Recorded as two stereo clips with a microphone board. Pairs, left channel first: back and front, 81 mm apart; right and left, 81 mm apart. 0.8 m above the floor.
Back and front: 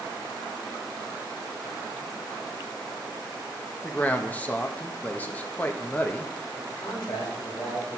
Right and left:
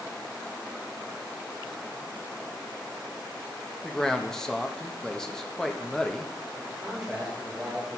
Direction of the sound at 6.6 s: 170° left.